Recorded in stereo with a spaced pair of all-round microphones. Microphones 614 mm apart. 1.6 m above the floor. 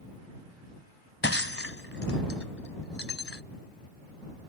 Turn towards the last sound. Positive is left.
turn(degrees=20)  # may be behind; listen again after turning